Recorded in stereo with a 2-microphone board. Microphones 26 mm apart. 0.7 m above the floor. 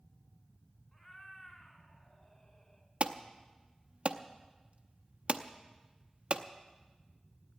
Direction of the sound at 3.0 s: 50° right (ahead or behind).